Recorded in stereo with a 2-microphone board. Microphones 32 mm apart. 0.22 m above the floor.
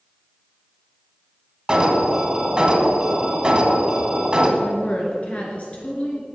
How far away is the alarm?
About 1.7 m.